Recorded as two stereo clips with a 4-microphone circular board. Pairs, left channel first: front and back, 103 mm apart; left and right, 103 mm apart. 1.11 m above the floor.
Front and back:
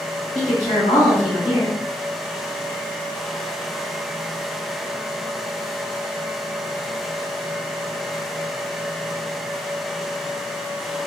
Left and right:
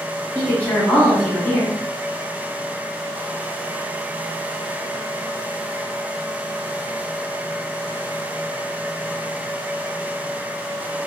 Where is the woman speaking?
15° left, 1.5 m.